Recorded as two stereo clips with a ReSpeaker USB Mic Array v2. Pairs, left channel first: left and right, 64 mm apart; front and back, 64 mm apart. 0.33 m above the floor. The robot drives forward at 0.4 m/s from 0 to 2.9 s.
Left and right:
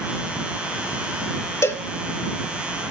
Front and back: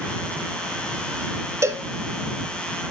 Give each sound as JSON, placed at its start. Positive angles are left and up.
{"t": 1.6, "sound": "a cowbell", "azimuth_deg": 135, "distance_m": 0.7}